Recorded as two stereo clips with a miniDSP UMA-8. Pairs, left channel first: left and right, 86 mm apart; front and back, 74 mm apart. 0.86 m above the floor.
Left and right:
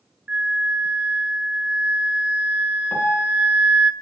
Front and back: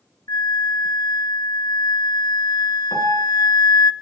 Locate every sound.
0.3 s a flute: 15° right, 0.6 m
2.9 s a piano: 30° left, 1.7 m